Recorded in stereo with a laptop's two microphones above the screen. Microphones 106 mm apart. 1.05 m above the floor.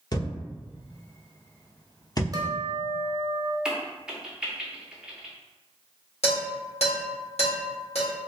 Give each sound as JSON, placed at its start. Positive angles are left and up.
{"t": 0.1, "sound": "a thud", "side_deg": 40, "distance_m": 0.8}
{"t": 2.3, "sound": "a guitar", "side_deg": -35, "distance_m": 0.7}
{"t": 3.6, "sound": "a crack", "side_deg": -10, "distance_m": 0.6}
{"t": 6.2, "sound": "dishes clattering", "side_deg": 75, "distance_m": 1.7}